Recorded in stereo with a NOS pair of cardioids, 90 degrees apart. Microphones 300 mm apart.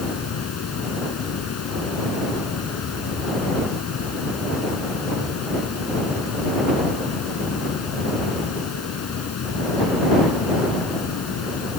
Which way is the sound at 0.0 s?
55° left.